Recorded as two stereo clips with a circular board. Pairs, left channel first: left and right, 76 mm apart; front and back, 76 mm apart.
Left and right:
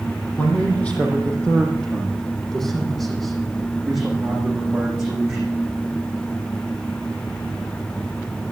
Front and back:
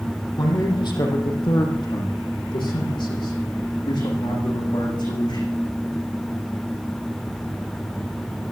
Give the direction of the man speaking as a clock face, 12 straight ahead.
11 o'clock.